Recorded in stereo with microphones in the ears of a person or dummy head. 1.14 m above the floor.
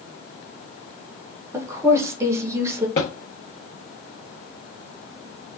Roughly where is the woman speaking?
Centre.